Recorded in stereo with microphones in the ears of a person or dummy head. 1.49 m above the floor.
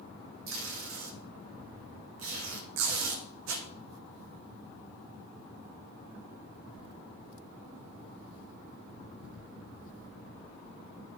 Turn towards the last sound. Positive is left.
turn(degrees=-75)  # may be behind; listen again after turning